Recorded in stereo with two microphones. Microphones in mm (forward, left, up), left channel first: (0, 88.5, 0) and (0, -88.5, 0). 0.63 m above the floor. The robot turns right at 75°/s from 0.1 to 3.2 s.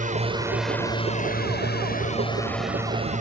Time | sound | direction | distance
0.0 | a drone | 45° right (ahead or behind) | ?